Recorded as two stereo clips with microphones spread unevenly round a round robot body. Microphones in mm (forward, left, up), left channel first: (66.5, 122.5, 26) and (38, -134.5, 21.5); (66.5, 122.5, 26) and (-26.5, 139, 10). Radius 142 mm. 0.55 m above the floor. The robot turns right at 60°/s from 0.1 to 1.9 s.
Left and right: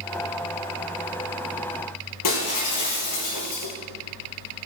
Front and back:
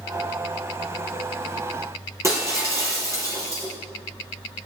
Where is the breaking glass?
110° left, 5.5 m.